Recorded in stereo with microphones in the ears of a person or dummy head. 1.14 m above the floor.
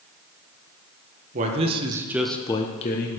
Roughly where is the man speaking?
Right.